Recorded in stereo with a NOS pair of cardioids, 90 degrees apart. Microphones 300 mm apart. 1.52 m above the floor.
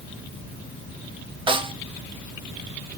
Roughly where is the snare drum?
Ahead.